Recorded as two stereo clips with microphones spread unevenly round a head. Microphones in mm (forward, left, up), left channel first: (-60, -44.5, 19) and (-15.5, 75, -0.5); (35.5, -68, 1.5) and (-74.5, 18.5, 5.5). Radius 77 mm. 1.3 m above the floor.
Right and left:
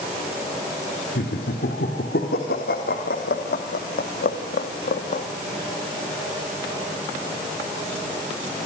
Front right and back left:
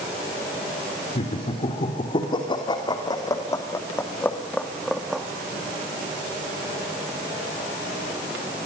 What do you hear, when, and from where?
1.1 s laughter: 85° right, 3.5 m; by 5.2 s 130° right, 2 m